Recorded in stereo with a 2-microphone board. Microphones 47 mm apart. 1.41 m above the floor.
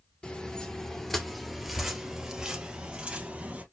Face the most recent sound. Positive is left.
turn(degrees=-30)  # may be behind; listen again after turning